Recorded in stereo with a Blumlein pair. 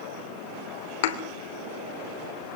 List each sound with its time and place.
1.0 s a thud: 55° left, 3 m